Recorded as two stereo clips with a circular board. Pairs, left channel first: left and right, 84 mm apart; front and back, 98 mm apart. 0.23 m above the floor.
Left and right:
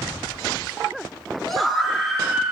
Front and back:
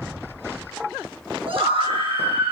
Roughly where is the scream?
Behind.